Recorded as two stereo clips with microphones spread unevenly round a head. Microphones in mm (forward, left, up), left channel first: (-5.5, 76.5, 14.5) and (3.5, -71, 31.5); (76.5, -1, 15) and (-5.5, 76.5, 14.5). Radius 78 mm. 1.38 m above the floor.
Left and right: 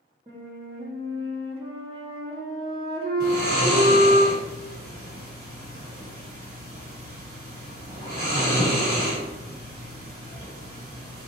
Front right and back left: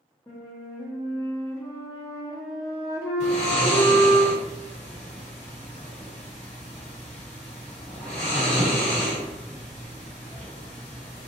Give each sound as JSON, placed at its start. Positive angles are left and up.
{"t": 0.3, "sound": "a flute", "azimuth_deg": -85, "distance_m": 1.0}
{"t": 3.2, "sound": "snoring", "azimuth_deg": -75, "distance_m": 2.0}